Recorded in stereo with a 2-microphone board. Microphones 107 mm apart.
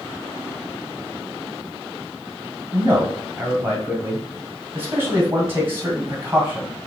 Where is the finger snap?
No finger snap in this recording.